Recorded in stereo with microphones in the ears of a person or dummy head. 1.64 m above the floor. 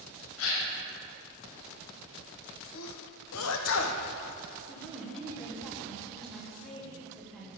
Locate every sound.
0.4 s a gasp: 80° left, 1.4 m
2.7 s a sneeze: 75° left (ahead or behind), 1.1 m
4.7 s a woman speaking: centre (ahead or behind), 1.6 m